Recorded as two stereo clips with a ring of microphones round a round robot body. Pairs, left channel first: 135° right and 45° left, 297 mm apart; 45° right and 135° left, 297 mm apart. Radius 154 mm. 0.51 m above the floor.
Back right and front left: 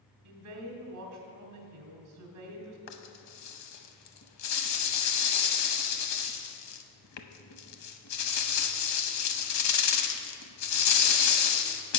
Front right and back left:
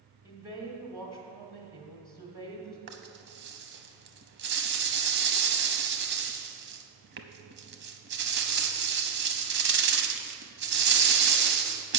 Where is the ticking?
No ticking in this recording.